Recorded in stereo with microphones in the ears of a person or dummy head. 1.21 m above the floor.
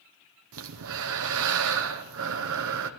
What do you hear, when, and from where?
0.5 s breathing: 70° right (ahead or behind), 0.9 m